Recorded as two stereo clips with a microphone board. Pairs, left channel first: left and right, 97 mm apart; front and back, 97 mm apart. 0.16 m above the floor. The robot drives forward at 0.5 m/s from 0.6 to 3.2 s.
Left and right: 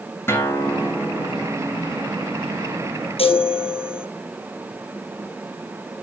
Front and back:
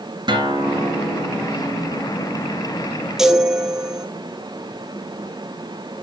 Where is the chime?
95° left, 1.1 m.